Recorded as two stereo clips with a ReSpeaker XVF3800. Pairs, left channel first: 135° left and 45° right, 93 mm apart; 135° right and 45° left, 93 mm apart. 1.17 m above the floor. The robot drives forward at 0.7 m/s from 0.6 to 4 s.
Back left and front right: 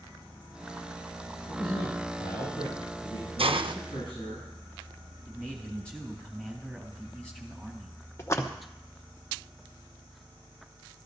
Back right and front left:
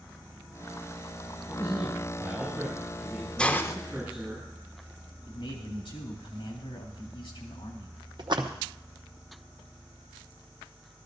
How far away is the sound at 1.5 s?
About 7 m.